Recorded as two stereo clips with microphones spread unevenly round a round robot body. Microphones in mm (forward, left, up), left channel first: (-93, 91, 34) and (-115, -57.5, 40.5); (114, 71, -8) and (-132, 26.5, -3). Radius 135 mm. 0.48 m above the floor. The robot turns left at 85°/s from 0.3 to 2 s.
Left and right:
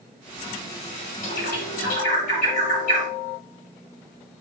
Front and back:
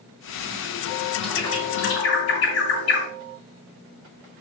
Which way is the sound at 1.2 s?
100° left.